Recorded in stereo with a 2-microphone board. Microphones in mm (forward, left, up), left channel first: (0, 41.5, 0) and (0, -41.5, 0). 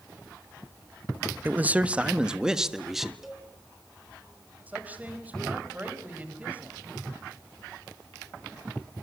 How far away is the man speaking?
About 1.0 m.